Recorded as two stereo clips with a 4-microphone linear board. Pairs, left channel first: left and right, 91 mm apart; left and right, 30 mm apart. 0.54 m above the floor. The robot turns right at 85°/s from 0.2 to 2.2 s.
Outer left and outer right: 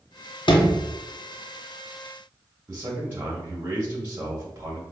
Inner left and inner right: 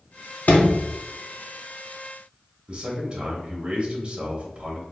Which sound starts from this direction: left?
A sliding door, at 0.5 s.